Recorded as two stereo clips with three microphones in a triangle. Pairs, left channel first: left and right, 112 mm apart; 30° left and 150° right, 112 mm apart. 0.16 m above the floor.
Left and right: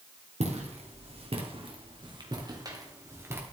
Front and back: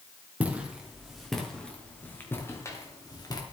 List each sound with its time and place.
0.4 s footsteps: 70° right, 3 m; by 3.4 s 20° right, 3 m